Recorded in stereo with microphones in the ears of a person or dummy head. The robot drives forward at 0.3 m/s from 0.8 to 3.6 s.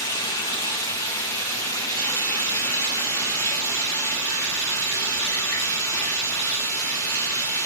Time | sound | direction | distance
0.0 | running water | 15° left (ahead or behind) | 1.5 m